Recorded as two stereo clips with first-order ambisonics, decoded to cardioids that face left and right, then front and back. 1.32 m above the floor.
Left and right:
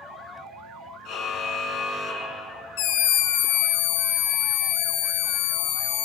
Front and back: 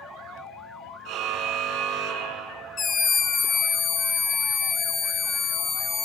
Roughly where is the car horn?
Behind left.